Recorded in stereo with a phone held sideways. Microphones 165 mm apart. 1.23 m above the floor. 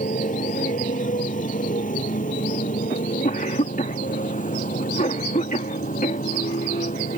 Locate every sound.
0.0 s a motorcycle: 50° left (ahead or behind)
2.9 s a cough: 50° left (ahead or behind)